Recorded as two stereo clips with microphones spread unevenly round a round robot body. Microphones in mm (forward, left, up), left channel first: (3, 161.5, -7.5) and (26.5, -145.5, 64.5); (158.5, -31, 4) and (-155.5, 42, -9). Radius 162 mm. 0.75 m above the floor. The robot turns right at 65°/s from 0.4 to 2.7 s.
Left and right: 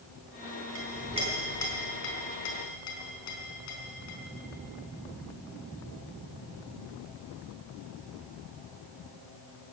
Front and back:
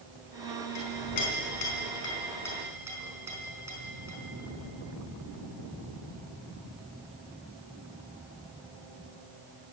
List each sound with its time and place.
0.8 s a clink: 40° right, 4 m; by 4.2 s 85° left, 4 m